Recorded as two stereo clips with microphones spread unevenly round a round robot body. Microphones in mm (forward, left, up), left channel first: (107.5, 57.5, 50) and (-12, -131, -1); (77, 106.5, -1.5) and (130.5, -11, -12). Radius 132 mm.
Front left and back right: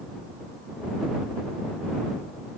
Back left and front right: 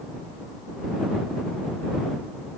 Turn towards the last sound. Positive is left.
No sound to turn to.